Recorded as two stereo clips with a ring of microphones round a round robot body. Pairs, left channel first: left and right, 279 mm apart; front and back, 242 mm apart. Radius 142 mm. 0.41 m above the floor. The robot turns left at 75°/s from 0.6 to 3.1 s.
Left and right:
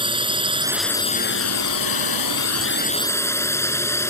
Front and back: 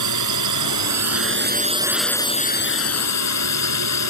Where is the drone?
165° right; by 4.1 s 10° left.